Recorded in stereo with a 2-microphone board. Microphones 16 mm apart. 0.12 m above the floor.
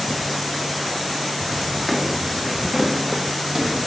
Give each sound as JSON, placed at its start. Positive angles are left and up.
{"t": 1.9, "sound": "footsteps", "side_deg": -20, "distance_m": 1.2}